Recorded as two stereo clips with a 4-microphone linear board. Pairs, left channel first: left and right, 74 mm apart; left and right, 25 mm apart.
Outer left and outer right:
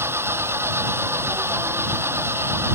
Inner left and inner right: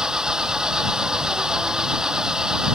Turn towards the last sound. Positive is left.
turn(degrees=-35)  # may be behind; listen again after turning